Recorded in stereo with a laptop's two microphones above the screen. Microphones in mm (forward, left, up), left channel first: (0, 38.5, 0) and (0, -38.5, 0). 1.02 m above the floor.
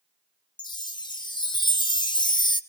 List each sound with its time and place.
0.6 s a chime: 85° left, 1.1 m